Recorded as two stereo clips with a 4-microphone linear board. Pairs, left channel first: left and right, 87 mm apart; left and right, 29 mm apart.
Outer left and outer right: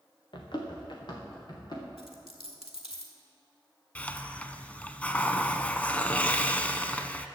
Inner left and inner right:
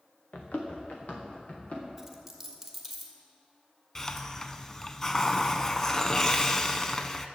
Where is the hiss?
15° left (ahead or behind), 0.6 m.